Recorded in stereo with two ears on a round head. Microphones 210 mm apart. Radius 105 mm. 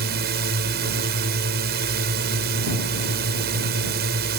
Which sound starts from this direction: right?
A drone, at 0.0 s.